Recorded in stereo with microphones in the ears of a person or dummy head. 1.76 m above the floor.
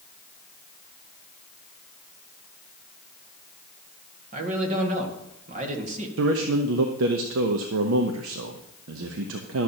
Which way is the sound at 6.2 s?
85° right.